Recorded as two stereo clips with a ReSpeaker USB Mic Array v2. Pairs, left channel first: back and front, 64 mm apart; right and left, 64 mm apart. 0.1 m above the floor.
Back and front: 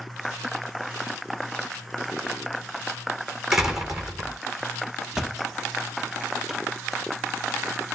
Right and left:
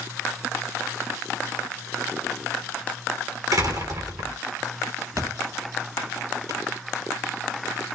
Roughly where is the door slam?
Left.